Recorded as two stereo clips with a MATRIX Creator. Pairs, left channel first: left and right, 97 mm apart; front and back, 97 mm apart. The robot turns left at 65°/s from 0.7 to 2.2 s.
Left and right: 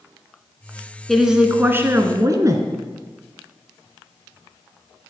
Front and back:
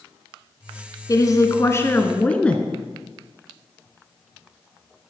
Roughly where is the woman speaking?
Ahead.